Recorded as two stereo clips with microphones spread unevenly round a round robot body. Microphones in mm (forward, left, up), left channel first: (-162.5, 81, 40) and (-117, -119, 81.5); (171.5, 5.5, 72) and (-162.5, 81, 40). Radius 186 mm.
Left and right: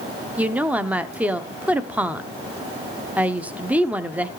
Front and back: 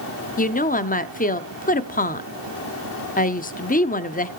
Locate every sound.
0.4 s a woman speaking: 25° left, 0.7 m